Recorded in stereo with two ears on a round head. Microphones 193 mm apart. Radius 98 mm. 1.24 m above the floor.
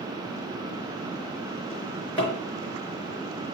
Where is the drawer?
5° left (ahead or behind), 4.5 m.